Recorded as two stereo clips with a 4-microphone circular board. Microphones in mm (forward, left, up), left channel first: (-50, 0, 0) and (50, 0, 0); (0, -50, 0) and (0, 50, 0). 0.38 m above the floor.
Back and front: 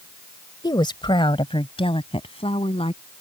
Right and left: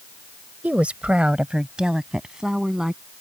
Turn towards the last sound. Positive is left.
turn(degrees=175)